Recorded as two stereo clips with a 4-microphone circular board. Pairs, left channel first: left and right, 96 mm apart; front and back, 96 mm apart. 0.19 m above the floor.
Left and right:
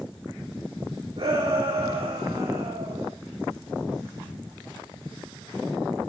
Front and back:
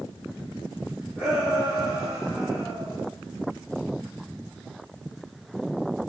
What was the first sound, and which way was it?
A shout, 105° right.